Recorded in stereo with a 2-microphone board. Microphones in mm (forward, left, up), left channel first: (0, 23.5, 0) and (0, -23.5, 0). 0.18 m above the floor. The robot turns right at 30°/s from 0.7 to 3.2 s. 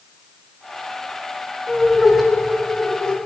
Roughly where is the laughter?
Centre.